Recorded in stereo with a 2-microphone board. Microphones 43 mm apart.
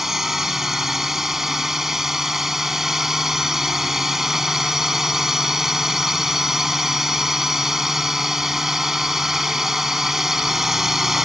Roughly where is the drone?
Centre.